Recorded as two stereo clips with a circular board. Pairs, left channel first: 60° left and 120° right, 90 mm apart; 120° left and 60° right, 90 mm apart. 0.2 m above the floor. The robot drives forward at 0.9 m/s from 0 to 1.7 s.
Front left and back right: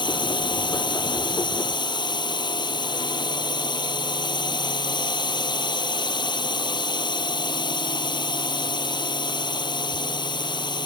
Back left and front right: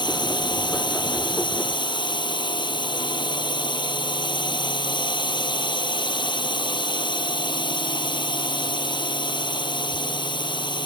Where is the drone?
90° left.